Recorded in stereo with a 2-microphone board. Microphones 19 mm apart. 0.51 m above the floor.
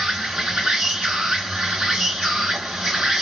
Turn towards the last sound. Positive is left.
turn(degrees=-60)  # may be behind; listen again after turning